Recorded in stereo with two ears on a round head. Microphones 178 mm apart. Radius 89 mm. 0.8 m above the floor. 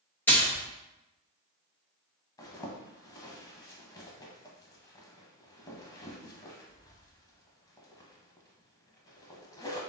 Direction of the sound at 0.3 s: 10° left (ahead or behind).